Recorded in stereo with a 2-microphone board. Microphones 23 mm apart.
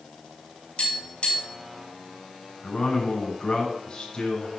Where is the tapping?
55° left (ahead or behind), 5.5 m.